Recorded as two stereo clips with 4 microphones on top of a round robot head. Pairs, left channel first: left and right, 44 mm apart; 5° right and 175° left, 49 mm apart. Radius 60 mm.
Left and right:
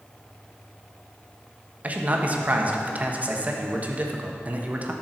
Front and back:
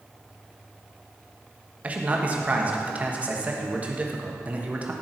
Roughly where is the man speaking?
Behind right.